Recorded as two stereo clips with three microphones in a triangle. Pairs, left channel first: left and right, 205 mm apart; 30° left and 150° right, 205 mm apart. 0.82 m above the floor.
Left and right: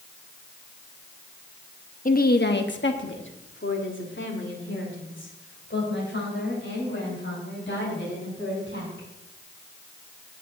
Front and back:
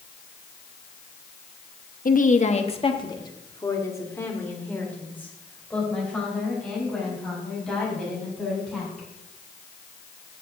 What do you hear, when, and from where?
2.0 s a woman speaking: 60° left, 0.8 m; by 9.1 s 115° left, 5.5 m